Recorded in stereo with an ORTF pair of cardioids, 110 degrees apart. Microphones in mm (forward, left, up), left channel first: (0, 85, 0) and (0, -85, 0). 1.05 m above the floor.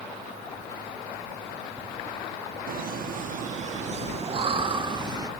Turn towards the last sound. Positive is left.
turn(degrees=-25)